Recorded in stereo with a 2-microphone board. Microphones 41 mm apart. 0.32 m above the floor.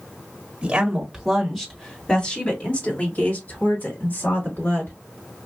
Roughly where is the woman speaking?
Right.